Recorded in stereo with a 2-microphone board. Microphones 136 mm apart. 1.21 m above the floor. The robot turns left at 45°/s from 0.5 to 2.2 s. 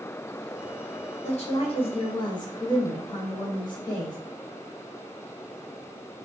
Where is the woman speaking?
90° left, 0.7 m; by 4.2 s 50° left, 0.7 m.